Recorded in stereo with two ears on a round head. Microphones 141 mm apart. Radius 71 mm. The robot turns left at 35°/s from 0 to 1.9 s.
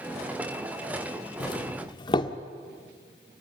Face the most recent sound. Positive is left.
turn(degrees=30)  # may be behind; listen again after turning